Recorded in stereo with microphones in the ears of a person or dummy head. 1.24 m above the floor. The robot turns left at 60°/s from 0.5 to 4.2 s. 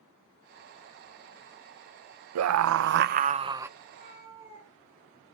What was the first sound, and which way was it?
A scream, 90° right.